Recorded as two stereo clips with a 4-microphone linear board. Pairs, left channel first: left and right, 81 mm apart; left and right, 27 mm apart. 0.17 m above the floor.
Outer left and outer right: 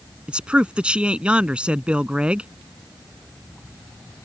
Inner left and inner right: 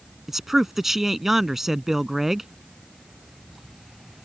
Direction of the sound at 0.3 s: 15° right (ahead or behind).